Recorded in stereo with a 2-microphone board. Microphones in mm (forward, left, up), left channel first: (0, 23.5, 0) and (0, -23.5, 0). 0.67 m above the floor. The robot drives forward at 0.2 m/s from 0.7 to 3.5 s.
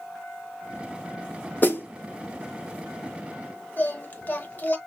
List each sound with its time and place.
1.6 s a snare drum: 40° left (ahead or behind), 1.1 m
3.8 s singing: 35° left (ahead or behind), 0.9 m